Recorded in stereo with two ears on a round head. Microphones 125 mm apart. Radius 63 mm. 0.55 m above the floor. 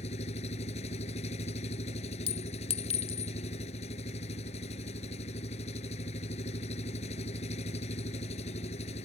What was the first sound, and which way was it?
An engine running, 45° left (ahead or behind).